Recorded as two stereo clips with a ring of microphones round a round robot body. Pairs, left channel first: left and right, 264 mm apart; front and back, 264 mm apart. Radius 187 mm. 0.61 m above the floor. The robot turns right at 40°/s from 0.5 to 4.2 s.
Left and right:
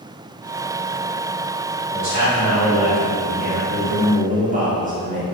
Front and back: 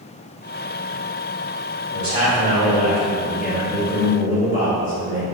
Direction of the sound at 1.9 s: 125° right.